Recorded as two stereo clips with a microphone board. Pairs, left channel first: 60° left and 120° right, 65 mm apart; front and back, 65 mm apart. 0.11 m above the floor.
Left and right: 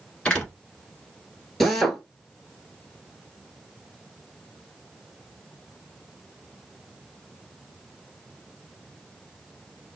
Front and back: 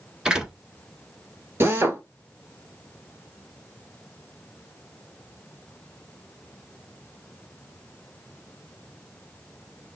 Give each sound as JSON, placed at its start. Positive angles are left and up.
{"t": 0.2, "sound": "a door slam", "azimuth_deg": 120, "distance_m": 1.1}
{"t": 1.6, "sound": "a drill", "azimuth_deg": 145, "distance_m": 0.9}